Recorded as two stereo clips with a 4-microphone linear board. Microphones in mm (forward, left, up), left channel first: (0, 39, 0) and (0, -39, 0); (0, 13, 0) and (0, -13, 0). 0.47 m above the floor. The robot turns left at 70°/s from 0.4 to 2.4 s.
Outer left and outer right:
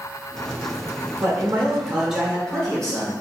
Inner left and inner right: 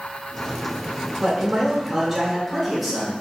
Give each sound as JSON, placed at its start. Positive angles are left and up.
{"t": 1.2, "sound": "a man speaking", "azimuth_deg": -110, "distance_m": 1.1}